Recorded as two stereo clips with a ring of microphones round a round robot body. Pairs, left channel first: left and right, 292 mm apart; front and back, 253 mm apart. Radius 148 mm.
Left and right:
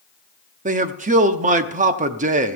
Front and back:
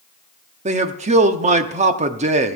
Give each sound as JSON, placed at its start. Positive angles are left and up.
{"t": 0.7, "sound": "a man speaking", "azimuth_deg": -135, "distance_m": 0.7}